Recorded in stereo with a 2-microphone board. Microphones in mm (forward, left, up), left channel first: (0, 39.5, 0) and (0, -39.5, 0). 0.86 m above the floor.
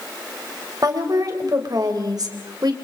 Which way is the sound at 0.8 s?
50° right (ahead or behind).